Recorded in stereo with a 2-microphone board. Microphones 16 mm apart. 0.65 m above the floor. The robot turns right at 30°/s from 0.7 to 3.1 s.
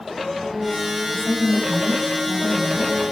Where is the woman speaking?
80° left, 4 m; by 3.0 s 135° left, 4 m.